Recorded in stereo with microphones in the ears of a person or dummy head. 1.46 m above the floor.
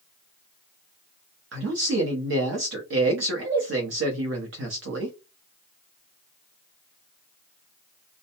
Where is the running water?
No running water in this recording.